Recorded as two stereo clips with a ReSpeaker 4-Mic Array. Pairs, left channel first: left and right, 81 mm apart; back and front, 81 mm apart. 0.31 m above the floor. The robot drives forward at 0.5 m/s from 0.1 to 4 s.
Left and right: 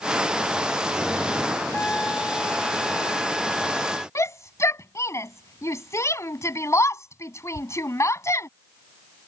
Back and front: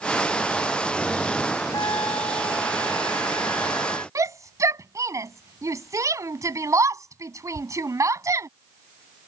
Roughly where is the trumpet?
Behind.